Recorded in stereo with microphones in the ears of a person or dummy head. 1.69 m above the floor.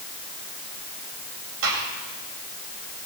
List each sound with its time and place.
1.6 s a gunshot: 70° right (ahead or behind), 7 m